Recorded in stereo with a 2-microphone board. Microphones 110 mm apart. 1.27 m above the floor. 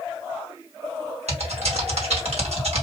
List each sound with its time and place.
1.3 s typing on a keyboard: 75° right (ahead or behind), 1.9 m